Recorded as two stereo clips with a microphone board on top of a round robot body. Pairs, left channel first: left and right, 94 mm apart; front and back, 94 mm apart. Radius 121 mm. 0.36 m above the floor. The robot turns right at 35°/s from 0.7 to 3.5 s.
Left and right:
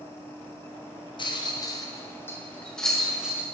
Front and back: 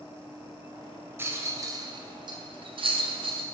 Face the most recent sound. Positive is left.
turn(degrees=-165)